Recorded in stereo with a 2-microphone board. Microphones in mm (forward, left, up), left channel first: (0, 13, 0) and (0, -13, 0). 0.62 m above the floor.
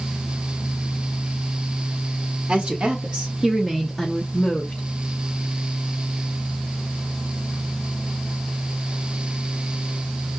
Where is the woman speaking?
60° right (ahead or behind), 1.6 m; by 4.8 s 40° left (ahead or behind), 1.1 m.